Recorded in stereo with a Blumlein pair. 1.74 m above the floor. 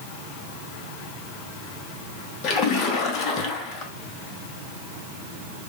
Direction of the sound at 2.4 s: 35° left.